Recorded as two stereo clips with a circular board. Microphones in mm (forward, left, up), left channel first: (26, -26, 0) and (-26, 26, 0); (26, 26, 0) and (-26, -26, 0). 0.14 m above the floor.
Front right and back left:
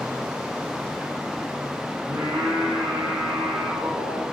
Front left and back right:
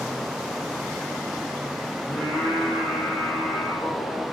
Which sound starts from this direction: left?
Singing, at 2.1 s.